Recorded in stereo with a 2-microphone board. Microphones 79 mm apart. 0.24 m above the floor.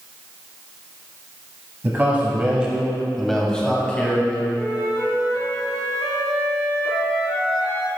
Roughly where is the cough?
I don't hear a cough.